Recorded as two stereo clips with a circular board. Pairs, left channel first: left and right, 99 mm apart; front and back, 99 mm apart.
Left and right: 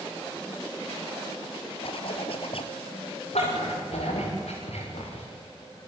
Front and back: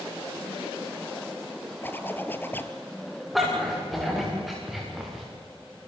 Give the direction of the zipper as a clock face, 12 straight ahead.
10 o'clock.